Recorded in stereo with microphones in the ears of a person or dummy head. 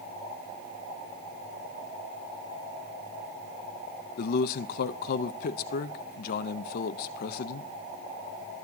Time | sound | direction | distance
4.2 | a man speaking | 45° left (ahead or behind) | 0.5 m